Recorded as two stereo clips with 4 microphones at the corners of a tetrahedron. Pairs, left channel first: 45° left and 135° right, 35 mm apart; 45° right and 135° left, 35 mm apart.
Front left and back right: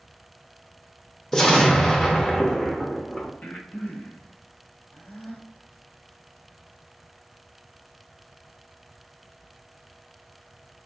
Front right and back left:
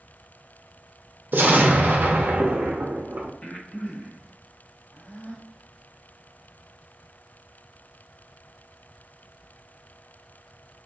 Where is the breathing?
10° left, 0.7 m.